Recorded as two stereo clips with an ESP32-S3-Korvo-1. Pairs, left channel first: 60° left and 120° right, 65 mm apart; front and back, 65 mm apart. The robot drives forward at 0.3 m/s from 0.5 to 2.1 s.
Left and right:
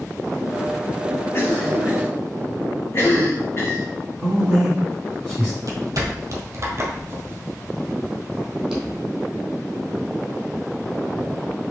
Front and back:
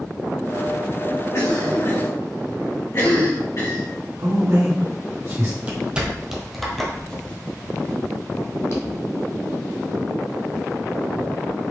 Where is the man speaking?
165° left, 2 m.